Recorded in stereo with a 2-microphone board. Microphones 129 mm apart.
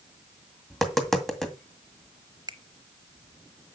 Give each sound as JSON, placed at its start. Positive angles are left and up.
{"t": 0.7, "sound": "tapping", "side_deg": 0, "distance_m": 2.0}
{"t": 2.5, "sound": "a finger snap", "side_deg": -35, "distance_m": 0.9}